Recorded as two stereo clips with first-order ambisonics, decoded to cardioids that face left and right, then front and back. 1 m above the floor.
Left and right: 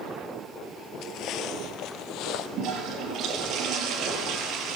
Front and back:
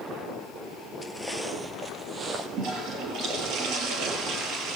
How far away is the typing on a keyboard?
No typing on a keyboard in this recording.